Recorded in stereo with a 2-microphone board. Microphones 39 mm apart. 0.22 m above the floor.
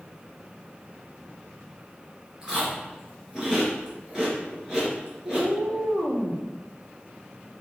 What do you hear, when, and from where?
2.4 s chewing: 15° right (ahead or behind), 3 m
5.2 s a cat meowing: 70° right (ahead or behind), 3 m